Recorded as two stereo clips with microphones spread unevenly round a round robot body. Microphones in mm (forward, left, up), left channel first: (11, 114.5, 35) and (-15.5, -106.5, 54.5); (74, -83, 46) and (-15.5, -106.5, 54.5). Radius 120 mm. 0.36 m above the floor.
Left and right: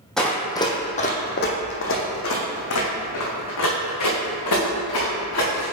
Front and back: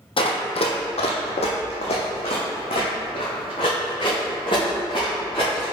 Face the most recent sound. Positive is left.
turn(degrees=80)